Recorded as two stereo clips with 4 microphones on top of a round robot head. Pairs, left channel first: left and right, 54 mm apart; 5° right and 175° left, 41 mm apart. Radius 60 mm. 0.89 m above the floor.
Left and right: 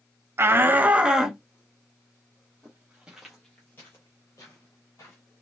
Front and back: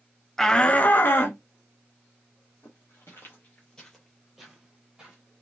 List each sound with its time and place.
0.4 s a shout: 85° right, 0.6 m; by 1.4 s 10° right, 0.9 m
2.6 s footsteps: 25° right, 1.1 m; by 5.2 s 110° left, 1.2 m